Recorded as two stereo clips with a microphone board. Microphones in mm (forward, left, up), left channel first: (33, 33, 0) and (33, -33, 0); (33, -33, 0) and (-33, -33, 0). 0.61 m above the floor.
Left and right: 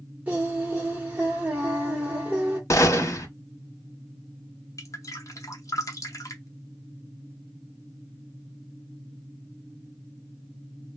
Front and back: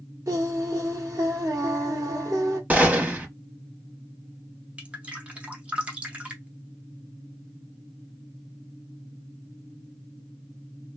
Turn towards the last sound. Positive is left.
turn(degrees=110)